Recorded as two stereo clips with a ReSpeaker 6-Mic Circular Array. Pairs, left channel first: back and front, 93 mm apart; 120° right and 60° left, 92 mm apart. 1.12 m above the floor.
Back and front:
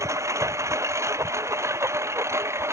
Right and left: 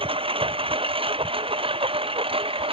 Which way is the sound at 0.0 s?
55° left.